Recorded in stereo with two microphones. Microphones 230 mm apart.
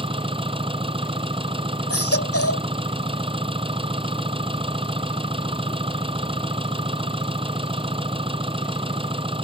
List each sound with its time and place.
0.0 s an engine running: 25° right (ahead or behind)
1.9 s a baby crying: 90° left